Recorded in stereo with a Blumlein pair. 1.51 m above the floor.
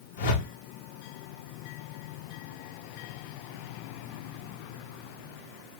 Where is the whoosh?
55° left, 1.2 m.